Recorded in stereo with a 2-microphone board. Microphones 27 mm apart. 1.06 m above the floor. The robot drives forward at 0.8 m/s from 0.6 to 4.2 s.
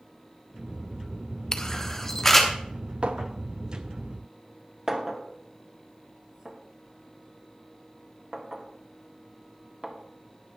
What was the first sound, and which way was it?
A camera shutter, 25° left (ahead or behind).